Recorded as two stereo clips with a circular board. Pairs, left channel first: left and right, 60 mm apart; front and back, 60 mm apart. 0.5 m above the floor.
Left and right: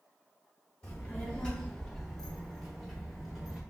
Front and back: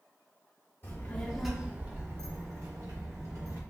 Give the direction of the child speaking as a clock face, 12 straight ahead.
11 o'clock.